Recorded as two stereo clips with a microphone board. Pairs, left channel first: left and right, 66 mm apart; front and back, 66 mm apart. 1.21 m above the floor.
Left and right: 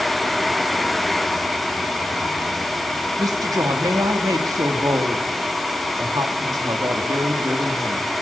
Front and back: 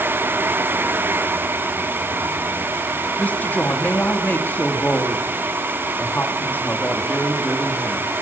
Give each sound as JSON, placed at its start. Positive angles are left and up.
{"t": 3.2, "sound": "a woman speaking", "azimuth_deg": -65, "distance_m": 2.5}